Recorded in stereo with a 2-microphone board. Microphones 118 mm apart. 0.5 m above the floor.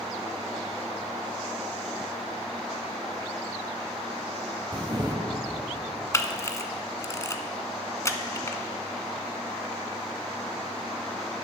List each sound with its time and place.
4.7 s a camera shutter: 35° right (ahead or behind), 1.0 m
6.1 s a camera shutter: 25° left (ahead or behind), 0.7 m